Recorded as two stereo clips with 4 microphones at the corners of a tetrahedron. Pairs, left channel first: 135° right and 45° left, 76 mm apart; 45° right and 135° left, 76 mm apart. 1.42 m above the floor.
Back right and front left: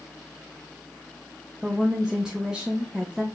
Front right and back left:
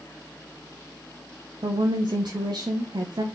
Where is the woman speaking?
125° left, 0.5 m.